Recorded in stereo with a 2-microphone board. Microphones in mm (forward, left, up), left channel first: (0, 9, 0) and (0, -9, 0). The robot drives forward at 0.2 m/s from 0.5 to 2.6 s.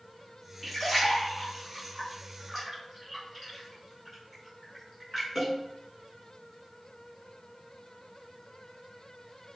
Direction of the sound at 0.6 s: 15° left (ahead or behind).